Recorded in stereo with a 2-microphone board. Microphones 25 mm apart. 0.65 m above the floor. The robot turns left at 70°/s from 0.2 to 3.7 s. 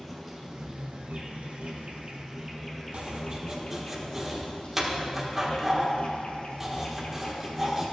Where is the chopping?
60° right (ahead or behind), 1.5 m; by 7.9 s 15° right (ahead or behind), 1.5 m.